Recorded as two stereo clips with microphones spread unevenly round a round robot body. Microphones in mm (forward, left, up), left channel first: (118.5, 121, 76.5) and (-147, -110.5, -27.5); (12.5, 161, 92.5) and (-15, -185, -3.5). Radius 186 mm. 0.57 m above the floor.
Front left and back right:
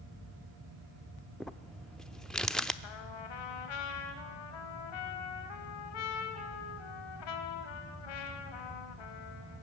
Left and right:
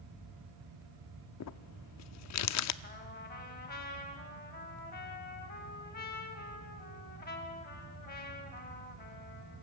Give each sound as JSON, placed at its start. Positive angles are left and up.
{"t": 1.4, "sound": "crumpling", "azimuth_deg": 140, "distance_m": 0.6}
{"t": 2.8, "sound": "a trumpet", "azimuth_deg": 20, "distance_m": 2.5}